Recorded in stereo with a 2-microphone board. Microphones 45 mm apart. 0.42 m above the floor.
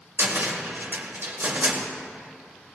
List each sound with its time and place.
0.2 s a cupboard door: 50° right (ahead or behind), 1.6 m